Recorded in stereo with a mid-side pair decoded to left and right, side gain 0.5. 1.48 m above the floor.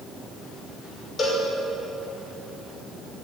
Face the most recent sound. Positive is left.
turn(degrees=35)